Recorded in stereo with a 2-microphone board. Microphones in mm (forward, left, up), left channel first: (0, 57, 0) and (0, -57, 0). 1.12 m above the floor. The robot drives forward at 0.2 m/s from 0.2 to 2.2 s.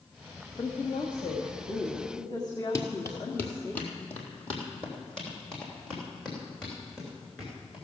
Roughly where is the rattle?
No rattle in this recording.